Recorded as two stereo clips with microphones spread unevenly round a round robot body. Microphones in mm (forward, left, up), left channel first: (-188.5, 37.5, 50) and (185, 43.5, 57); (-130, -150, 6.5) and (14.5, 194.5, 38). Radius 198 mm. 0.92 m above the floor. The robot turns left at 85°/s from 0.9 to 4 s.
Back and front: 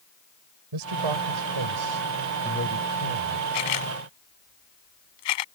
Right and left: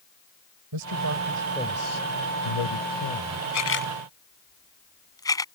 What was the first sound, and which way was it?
A man speaking, 25° left.